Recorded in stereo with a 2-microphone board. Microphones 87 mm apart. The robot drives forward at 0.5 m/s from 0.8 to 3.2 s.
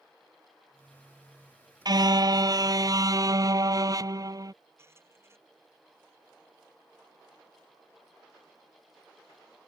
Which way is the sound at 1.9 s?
50° right (ahead or behind).